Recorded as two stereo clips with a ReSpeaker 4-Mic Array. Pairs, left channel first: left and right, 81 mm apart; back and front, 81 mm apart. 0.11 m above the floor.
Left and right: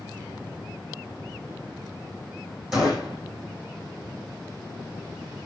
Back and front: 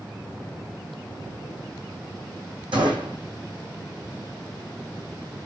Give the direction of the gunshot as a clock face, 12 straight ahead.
12 o'clock.